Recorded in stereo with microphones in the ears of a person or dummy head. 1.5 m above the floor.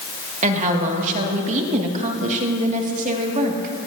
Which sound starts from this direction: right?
A woman speaking, at 0.4 s.